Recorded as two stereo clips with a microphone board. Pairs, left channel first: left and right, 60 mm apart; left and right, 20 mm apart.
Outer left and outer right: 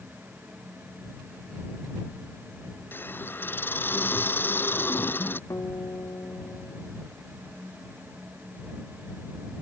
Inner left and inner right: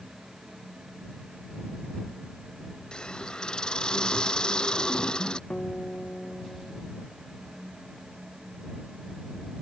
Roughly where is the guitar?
Left.